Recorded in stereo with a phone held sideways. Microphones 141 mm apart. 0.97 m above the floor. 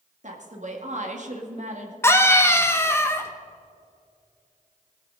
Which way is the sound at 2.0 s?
20° left (ahead or behind).